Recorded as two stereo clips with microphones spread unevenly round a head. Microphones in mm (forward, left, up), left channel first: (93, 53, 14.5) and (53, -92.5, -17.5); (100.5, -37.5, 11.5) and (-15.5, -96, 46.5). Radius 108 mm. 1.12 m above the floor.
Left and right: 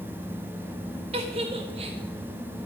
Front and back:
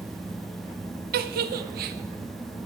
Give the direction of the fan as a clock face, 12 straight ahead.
2 o'clock.